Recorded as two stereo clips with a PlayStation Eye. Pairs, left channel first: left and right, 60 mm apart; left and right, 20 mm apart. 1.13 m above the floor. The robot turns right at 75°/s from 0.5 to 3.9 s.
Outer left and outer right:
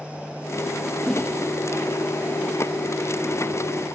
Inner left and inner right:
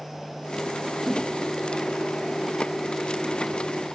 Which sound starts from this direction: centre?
A whoosh, at 1.1 s.